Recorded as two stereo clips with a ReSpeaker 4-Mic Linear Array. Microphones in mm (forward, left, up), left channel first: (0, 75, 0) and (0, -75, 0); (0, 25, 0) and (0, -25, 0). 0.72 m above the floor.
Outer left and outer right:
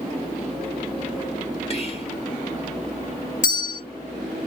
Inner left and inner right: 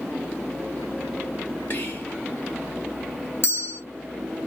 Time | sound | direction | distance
1.7 | whispering | 40° left (ahead or behind) | 1.2 m
3.4 | a bell | 55° left (ahead or behind) | 1.9 m